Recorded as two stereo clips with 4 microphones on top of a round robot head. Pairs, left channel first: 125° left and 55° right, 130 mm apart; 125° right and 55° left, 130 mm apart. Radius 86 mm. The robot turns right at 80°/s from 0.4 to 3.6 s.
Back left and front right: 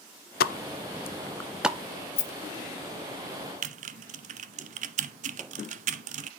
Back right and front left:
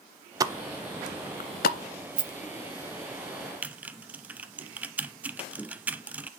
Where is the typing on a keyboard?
25° right, 0.5 m.